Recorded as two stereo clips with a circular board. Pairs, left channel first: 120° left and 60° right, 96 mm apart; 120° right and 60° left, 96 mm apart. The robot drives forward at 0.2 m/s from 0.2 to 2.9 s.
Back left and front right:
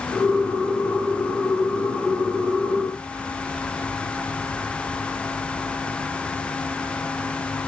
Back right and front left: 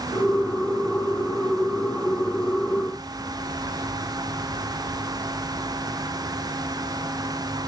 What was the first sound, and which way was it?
Only background noise.